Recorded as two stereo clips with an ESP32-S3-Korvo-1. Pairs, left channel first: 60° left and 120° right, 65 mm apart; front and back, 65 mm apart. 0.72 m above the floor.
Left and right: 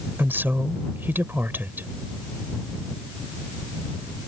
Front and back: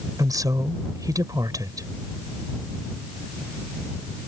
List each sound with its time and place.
0.2 s a woman speaking: 175° right